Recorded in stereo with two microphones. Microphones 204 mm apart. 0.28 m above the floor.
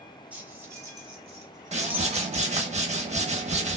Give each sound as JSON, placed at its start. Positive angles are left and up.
{"t": 0.3, "sound": "keys jangling", "side_deg": -5, "distance_m": 1.5}
{"t": 1.7, "sound": "a whoosh", "side_deg": -35, "distance_m": 0.6}